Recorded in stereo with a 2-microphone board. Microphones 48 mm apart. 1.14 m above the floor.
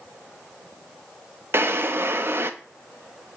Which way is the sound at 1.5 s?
50° right (ahead or behind).